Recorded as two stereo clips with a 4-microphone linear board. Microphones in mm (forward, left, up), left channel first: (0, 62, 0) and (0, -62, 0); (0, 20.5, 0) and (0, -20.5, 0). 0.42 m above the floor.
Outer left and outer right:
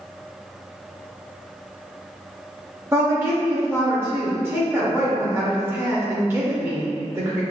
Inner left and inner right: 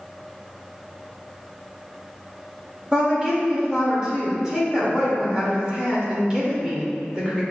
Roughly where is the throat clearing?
No throat clearing in this recording.